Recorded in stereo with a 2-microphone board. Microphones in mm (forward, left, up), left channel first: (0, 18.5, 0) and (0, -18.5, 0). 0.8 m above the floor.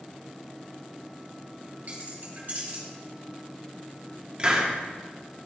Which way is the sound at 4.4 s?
30° right (ahead or behind).